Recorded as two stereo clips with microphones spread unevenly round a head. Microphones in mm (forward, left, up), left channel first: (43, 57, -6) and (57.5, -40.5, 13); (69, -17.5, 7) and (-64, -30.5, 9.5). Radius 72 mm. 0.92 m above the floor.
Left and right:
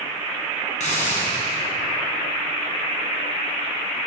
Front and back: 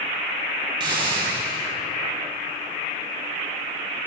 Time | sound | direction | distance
0.8 | a hiss | 125° left | 6.5 m